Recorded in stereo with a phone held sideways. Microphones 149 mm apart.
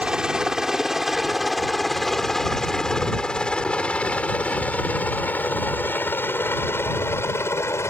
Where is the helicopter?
5° right (ahead or behind); by 7.9 s 20° left (ahead or behind).